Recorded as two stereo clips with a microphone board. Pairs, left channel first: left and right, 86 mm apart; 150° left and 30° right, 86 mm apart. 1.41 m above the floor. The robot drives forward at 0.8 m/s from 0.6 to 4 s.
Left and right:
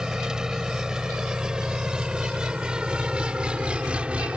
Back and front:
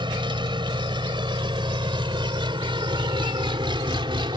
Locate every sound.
0.0 s an engine running: 10° right; by 4.4 s 15° right